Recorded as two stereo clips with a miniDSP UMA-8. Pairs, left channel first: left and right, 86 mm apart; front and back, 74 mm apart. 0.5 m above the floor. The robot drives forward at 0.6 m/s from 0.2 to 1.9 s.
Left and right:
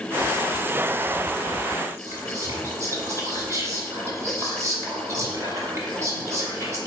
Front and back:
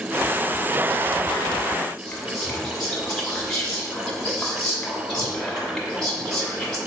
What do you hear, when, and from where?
2.0 s whispering: 80° right, 1.1 m